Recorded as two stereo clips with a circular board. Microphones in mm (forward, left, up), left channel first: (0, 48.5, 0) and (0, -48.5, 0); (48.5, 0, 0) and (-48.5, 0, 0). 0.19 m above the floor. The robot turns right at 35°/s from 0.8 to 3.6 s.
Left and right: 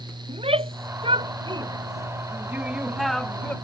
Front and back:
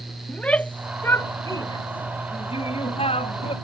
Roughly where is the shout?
Right.